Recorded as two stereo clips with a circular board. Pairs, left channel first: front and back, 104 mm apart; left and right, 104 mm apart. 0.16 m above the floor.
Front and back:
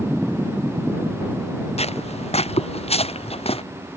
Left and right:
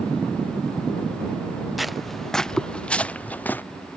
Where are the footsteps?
Straight ahead; by 3.6 s 15° left.